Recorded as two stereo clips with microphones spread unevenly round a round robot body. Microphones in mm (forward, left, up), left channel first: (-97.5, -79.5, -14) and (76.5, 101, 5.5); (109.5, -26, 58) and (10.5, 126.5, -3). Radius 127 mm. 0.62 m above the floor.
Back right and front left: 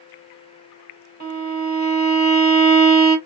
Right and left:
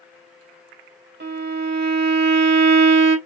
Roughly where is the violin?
Left.